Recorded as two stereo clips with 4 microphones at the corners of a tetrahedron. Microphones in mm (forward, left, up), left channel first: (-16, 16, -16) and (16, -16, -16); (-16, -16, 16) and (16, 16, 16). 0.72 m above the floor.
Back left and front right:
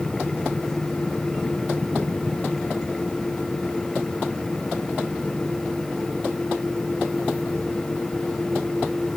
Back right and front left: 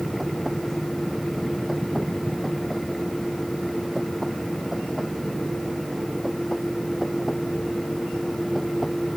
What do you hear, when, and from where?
Only background noise.